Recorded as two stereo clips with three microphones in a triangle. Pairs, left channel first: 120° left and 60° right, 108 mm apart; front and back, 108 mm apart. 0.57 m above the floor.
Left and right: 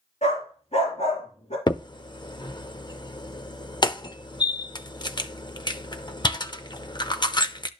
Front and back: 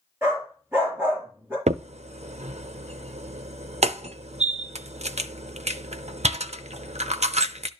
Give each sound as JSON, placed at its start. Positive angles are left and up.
{"t": 0.2, "sound": "a dog barking", "azimuth_deg": 110, "distance_m": 5.0}
{"t": 1.7, "sound": "a crack", "azimuth_deg": 170, "distance_m": 0.5}